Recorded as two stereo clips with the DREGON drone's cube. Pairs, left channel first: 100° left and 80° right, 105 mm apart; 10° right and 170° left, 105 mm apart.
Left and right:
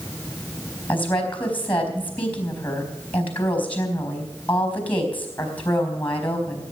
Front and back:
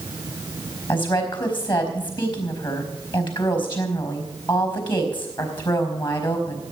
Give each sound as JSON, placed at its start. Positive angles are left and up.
{"t": 0.9, "sound": "a woman speaking", "azimuth_deg": 25, "distance_m": 4.0}